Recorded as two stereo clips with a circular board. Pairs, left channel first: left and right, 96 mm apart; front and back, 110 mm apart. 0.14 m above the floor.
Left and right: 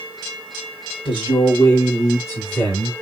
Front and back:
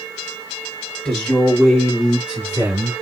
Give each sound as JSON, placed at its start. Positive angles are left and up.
{"t": 1.1, "sound": "a man speaking", "azimuth_deg": 85, "distance_m": 3.0}